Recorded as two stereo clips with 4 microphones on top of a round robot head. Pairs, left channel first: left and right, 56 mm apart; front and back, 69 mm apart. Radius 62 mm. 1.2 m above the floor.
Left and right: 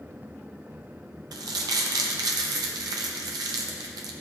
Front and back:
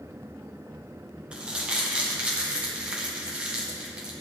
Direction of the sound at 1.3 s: 100° right.